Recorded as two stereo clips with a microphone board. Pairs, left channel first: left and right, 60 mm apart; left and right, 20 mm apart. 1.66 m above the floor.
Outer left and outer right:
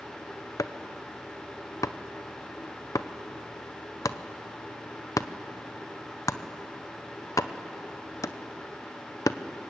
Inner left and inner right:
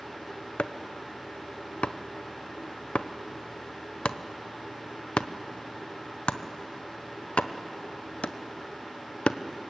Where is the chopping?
70° left (ahead or behind), 0.8 m.